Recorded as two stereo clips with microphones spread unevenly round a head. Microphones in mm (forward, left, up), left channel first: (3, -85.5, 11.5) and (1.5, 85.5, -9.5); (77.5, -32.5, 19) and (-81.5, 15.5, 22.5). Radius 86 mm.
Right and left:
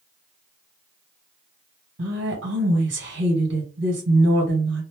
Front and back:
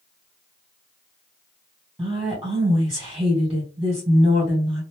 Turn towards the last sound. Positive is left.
turn(degrees=75)